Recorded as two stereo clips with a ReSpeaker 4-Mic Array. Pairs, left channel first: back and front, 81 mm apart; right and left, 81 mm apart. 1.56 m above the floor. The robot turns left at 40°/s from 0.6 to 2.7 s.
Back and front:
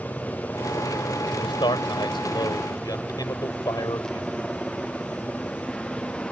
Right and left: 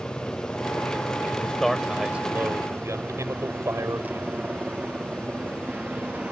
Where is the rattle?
No rattle in this recording.